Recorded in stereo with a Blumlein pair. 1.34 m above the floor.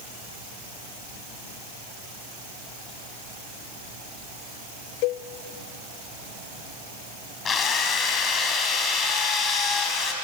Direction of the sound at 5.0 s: 45° left.